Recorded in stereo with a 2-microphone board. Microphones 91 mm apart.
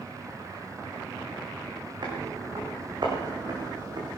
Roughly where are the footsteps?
Right.